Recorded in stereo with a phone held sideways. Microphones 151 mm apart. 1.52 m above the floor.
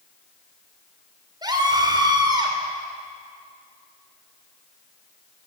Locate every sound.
1.4 s a scream: 30° right (ahead or behind), 4.5 m